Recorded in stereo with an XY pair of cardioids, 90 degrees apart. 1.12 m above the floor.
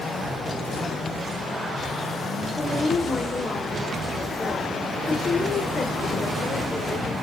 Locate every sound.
2.5 s a woman speaking: 30° left, 2.5 m